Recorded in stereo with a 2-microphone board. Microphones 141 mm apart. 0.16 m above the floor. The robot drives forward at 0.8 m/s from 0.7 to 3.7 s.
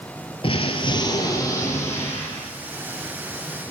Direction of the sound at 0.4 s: 40° left (ahead or behind).